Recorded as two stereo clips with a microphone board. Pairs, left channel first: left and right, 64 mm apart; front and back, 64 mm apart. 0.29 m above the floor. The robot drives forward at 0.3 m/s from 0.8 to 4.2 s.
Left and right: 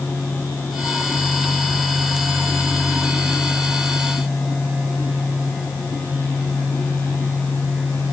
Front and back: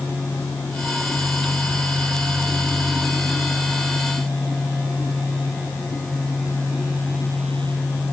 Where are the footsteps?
No footsteps in this recording.